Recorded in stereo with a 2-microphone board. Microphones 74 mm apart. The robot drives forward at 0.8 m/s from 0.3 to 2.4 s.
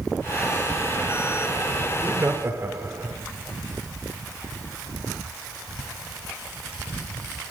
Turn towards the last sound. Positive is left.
turn(degrees=-35)  # may be behind; listen again after turning